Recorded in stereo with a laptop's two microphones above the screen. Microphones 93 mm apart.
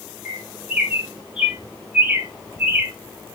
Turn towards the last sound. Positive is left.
turn(degrees=-10)  # may be behind; listen again after turning